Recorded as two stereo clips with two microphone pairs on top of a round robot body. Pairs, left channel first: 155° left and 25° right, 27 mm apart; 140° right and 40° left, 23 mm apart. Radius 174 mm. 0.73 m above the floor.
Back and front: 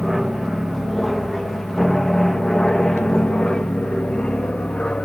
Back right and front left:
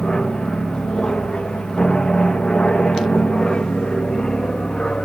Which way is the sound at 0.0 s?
110° right.